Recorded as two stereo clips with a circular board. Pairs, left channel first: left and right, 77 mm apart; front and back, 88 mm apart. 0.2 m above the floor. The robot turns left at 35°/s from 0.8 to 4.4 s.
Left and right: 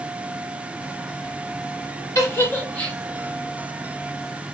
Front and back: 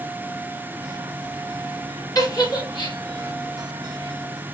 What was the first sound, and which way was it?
A giggle, 45° left.